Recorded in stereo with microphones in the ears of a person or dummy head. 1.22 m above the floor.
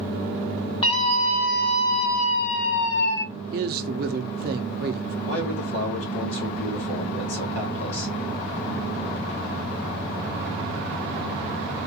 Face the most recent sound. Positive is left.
turn(degrees=75)  # may be behind; listen again after turning